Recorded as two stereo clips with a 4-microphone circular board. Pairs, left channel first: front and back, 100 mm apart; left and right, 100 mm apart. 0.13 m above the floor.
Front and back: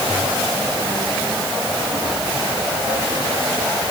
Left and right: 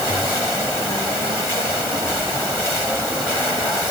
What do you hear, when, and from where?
Only background noise.